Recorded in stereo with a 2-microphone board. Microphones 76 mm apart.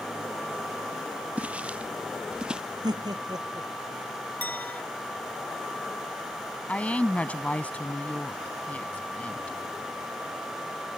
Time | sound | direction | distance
1.4 | footsteps | 20° right (ahead or behind) | ?
2.8 | laughter | 65° right (ahead or behind) | ?
4.4 | a clink | 20° left (ahead or behind) | ?
6.7 | a woman speaking | 20° left (ahead or behind) | ?